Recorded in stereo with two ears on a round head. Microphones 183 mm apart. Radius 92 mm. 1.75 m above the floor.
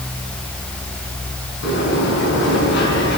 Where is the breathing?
No breathing in this recording.